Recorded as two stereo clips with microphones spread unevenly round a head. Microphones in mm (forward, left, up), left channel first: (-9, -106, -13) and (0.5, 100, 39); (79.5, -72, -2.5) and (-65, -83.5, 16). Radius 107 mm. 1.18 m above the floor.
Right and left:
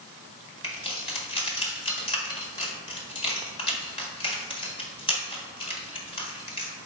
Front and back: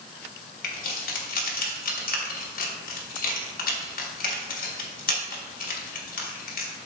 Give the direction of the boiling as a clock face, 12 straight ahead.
I don't hear boiling.